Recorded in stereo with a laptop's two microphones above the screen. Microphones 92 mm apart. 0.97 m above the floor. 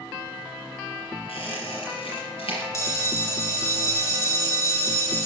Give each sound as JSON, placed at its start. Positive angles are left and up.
{"t": 1.3, "sound": "a squeak", "side_deg": 80, "distance_m": 5.0}
{"t": 2.7, "sound": "a bell", "side_deg": 35, "distance_m": 2.0}